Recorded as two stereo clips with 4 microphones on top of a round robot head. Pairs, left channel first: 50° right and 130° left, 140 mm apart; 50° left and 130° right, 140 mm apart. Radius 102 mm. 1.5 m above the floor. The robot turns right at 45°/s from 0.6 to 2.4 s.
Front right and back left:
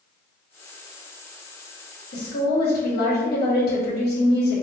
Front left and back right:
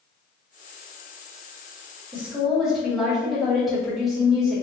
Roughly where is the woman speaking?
Ahead right.